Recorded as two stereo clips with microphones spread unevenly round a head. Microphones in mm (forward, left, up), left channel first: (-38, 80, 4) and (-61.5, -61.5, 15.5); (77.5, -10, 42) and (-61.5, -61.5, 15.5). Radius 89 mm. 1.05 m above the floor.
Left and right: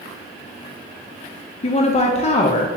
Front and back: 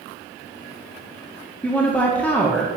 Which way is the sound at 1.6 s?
110° left.